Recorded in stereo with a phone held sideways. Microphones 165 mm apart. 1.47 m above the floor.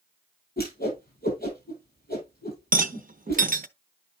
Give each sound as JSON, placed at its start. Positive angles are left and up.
{"t": 0.6, "sound": "a whoosh", "side_deg": 70, "distance_m": 7.0}
{"t": 2.7, "sound": "a rattle", "side_deg": -55, "distance_m": 0.6}